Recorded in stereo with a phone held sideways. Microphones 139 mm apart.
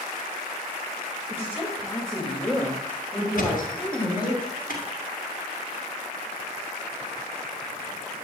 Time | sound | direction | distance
1.3 | a woman speaking | 15° left (ahead or behind) | 2 m
3.4 | a thud | 75° left (ahead or behind) | 4 m